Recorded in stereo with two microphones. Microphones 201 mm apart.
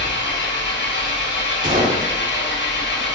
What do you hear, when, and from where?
0.0 s an engine running: 65° left (ahead or behind), 1.0 m
1.6 s a gunshot: 40° right (ahead or behind), 1.5 m